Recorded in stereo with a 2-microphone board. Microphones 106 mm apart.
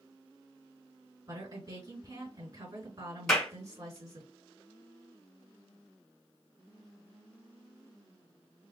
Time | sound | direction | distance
1.3 | a woman speaking | 35° right (ahead or behind) | 4 m
3.3 | a clap | centre (ahead or behind) | 3.5 m